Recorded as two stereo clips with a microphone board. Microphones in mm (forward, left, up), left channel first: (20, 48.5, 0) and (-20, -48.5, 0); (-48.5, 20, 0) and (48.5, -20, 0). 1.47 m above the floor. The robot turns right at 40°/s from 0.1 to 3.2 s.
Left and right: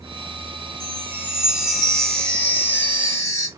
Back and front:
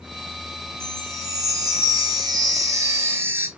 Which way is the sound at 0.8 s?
65° right.